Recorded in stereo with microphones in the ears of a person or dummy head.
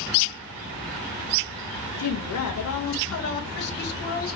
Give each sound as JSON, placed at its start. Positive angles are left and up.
{"t": 2.0, "sound": "a woman speaking", "side_deg": 75, "distance_m": 0.7}